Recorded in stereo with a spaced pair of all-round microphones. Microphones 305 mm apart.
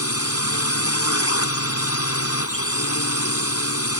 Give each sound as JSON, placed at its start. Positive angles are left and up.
{"t": 0.0, "sound": "a drone", "side_deg": 50}